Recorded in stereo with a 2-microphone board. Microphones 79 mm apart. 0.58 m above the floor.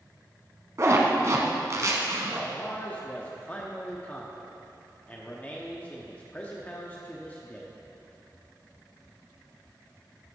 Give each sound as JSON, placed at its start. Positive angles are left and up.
{"t": 0.8, "sound": "a zipper", "side_deg": -40, "distance_m": 1.1}
{"t": 2.4, "sound": "a man speaking", "side_deg": 20, "distance_m": 0.8}